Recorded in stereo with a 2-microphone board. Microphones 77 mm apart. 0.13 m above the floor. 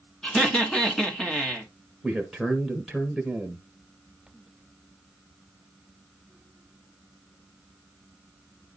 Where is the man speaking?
Centre (ahead or behind), 1.4 m.